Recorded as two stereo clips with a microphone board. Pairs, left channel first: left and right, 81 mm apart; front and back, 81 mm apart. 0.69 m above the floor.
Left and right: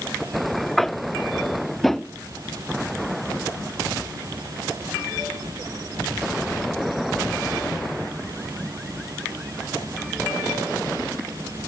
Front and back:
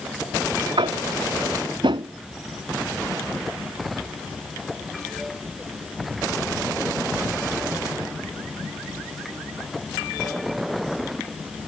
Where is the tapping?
175° left.